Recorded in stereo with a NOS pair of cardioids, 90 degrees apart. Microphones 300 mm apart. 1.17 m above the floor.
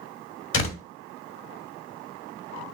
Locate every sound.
0.5 s a door slam: 45° left, 1.8 m